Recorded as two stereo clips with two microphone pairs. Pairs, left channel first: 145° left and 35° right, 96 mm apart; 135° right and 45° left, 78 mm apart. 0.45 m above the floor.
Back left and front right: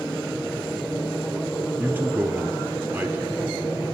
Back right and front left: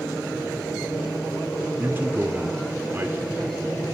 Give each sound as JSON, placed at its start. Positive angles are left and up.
{"t": 1.8, "sound": "a man speaking", "azimuth_deg": 10, "distance_m": 0.9}